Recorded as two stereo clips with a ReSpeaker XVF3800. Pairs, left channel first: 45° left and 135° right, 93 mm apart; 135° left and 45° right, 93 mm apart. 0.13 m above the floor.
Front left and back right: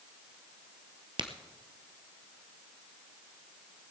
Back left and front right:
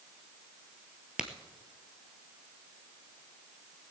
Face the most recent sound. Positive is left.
turn(degrees=-125)